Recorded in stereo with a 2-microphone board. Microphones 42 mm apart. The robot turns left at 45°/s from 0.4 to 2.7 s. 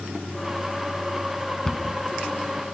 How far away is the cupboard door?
About 0.9 m.